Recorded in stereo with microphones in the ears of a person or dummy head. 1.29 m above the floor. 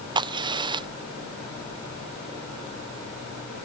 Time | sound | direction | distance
0.1 | a crack | 30° right (ahead or behind) | ?